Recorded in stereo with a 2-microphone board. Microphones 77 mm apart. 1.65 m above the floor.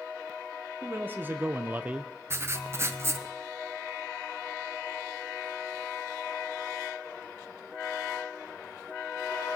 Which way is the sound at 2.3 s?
35° right (ahead or behind).